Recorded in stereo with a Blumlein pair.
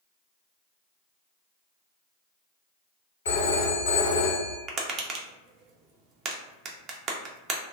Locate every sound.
3.2 s a phone ringing: 65° left, 0.9 m
4.7 s tapping: 25° right, 0.5 m